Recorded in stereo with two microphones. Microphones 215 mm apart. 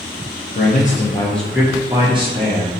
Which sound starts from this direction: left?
A man speaking, at 0.6 s.